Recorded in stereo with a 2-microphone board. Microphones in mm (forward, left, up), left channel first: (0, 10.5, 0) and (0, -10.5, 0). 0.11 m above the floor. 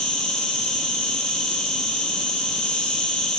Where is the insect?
65° left (ahead or behind), 3 m.